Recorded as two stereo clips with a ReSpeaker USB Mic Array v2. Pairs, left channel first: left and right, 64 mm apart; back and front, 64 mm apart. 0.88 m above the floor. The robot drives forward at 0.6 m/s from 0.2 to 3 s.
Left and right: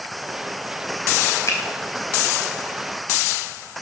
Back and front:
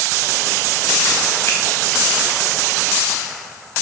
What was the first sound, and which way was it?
A finger snap, 135° left.